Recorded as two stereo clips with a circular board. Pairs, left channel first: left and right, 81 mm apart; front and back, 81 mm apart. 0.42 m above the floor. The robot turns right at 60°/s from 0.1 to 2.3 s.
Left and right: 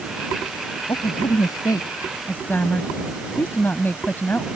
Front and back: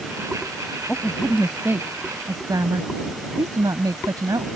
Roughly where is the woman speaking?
Left.